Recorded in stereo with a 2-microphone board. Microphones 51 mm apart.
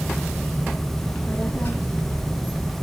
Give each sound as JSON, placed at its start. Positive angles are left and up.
{"t": 1.0, "sound": "a child speaking", "side_deg": 40, "distance_m": 1.8}